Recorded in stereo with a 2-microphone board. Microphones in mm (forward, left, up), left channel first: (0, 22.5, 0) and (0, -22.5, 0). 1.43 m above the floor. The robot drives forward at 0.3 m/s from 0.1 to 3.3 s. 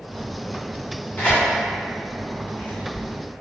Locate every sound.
1.2 s tearing paper: 45° left (ahead or behind), 1.6 m; by 3.0 s 40° left (ahead or behind), 1.8 m